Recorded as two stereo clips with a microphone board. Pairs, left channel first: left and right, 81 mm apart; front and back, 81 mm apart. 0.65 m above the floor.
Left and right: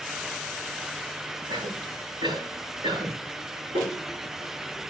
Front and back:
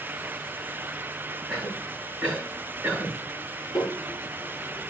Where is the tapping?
75° right, 10 m.